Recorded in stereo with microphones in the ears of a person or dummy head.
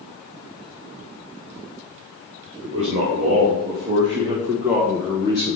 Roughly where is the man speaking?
Right.